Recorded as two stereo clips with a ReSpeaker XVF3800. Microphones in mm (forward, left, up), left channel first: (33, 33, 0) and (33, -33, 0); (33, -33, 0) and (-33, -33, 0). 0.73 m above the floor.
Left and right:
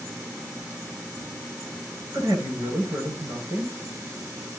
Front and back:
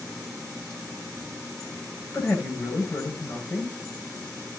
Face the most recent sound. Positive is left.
turn(degrees=-50)